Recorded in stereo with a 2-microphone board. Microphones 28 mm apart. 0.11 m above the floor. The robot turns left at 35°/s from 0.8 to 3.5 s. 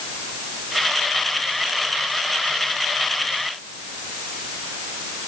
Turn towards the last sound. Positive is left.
No sound to turn to.